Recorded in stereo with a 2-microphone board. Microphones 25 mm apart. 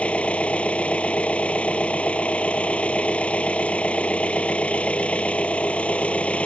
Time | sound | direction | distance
0.0 | an engine running | 65° left (ahead or behind) | ?